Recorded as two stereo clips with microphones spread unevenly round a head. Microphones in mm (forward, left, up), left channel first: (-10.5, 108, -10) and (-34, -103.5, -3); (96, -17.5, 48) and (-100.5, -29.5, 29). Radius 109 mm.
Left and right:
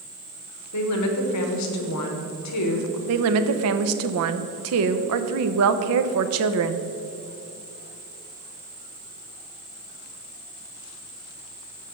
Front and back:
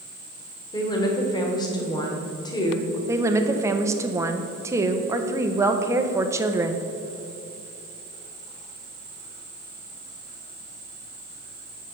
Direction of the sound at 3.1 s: 100° right.